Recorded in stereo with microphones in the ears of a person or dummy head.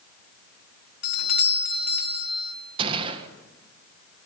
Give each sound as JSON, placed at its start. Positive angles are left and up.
{"t": 1.0, "sound": "a doorbell", "side_deg": 55, "distance_m": 1.5}
{"t": 2.8, "sound": "a gunshot", "side_deg": -30, "distance_m": 1.7}